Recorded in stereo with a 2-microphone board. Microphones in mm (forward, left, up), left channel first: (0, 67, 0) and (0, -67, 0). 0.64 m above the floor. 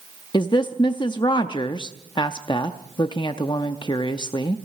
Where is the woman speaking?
35° left (ahead or behind), 0.6 m.